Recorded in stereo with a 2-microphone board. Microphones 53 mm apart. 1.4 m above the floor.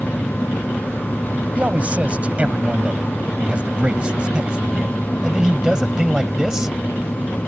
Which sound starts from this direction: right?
A man speaking, at 1.6 s.